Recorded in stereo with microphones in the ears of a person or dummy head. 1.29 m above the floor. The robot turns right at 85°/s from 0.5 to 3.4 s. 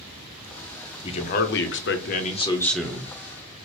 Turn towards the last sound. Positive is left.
turn(degrees=-125)